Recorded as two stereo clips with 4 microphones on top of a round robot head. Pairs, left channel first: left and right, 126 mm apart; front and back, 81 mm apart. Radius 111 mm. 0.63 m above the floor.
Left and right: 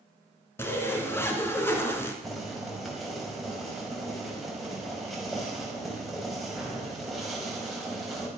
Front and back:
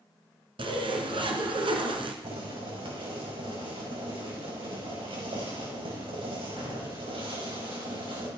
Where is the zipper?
165° left, 2.5 m.